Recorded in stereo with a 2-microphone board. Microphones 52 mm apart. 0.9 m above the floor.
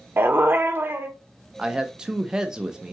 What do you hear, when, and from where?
0.2 s a dog barking: 45° right (ahead or behind), 0.7 m
1.6 s a man speaking: 15° right (ahead or behind), 0.7 m